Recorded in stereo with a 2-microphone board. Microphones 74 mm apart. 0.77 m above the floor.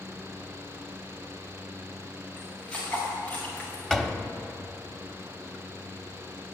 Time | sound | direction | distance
2.4 | footsteps | 10° left (ahead or behind) | 6.5 m
3.9 | a door slam | 5° left (ahead or behind) | 0.9 m